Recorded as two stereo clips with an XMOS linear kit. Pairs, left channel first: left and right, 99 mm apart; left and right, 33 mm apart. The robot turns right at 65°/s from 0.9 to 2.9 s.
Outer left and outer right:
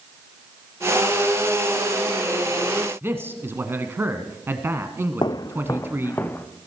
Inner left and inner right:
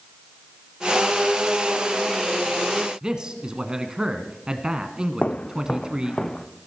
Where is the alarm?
No alarm in this recording.